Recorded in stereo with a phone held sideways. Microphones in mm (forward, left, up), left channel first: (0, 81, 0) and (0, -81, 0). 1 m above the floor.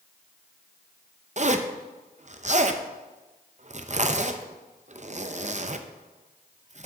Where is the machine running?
I don't hear a machine running.